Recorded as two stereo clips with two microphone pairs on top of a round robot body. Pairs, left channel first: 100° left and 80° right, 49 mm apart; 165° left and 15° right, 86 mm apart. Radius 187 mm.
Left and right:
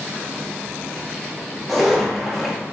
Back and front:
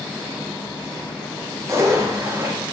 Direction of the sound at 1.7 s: 15° left.